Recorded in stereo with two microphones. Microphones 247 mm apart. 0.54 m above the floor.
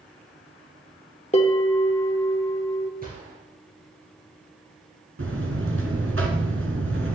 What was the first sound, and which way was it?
A bell, 25° left (ahead or behind).